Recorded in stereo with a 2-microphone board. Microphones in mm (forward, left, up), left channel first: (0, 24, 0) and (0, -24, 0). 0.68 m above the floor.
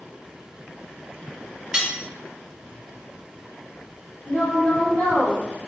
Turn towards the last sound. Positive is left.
turn(degrees=45)  # may be behind; listen again after turning